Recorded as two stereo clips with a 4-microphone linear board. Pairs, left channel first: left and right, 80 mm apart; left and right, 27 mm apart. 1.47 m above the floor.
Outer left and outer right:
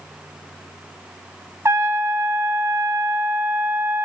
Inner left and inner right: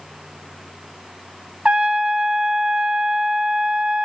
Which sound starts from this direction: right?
A trumpet, at 1.6 s.